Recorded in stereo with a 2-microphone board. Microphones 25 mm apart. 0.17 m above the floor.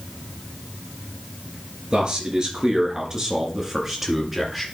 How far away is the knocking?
I don't hear knocking.